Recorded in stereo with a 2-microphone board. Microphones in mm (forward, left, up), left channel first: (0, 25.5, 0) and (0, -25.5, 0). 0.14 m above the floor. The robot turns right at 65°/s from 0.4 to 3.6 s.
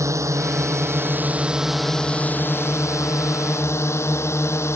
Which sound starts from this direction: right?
A drone, at 0.0 s.